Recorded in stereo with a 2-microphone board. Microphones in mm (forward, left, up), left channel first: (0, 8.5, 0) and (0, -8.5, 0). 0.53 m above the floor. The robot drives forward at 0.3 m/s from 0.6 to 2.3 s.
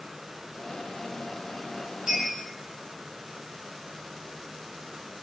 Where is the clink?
45° right (ahead or behind), 1.6 m.